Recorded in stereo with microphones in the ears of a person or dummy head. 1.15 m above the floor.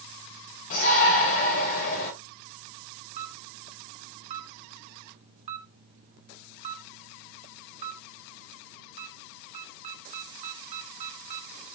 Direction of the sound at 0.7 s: 40° left (ahead or behind).